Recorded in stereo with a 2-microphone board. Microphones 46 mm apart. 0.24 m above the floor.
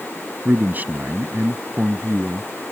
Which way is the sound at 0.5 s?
40° right (ahead or behind).